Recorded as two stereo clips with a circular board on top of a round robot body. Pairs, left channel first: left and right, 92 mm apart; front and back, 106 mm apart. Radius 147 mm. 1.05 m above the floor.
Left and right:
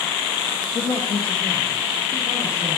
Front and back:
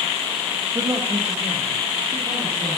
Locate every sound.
0.8 s a man speaking: 125° left, 0.8 m; by 2.8 s 120° left, 3.5 m